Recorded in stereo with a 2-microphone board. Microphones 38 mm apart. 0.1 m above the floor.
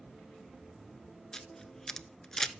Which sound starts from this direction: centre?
A camera shutter, at 1.3 s.